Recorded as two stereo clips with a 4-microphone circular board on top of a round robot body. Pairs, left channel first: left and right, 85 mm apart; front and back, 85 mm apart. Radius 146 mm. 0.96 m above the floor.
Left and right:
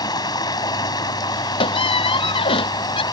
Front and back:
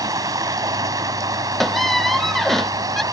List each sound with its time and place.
0.0 s running water: 130° left
1.6 s a squeak: 85° left